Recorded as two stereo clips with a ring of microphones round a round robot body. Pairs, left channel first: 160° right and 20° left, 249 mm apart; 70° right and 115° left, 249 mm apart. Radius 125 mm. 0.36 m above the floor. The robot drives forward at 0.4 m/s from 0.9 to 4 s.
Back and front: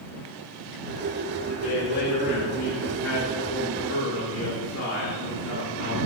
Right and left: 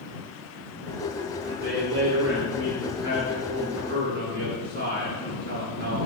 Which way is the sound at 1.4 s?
155° left.